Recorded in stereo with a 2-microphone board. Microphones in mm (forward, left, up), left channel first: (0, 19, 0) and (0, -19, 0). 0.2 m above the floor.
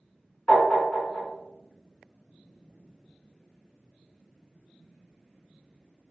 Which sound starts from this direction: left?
Tapping, at 0.5 s.